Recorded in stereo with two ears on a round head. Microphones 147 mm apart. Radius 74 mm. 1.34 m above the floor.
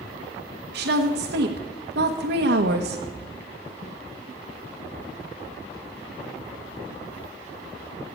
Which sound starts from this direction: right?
A woman speaking, at 0.7 s.